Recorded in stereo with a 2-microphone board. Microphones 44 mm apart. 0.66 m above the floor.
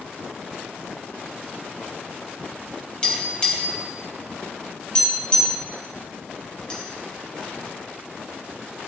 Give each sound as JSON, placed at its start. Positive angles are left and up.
{"t": 3.0, "sound": "tapping", "side_deg": 25, "distance_m": 3.0}